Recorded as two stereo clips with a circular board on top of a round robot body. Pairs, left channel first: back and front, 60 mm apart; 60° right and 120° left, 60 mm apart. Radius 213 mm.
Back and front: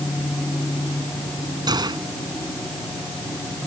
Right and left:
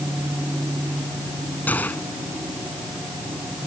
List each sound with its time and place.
1.7 s a gunshot: 5° left